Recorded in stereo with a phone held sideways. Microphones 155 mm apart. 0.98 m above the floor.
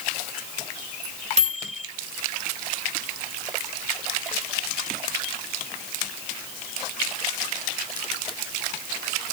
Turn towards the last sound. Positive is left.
turn(degrees=-50)  # may be behind; listen again after turning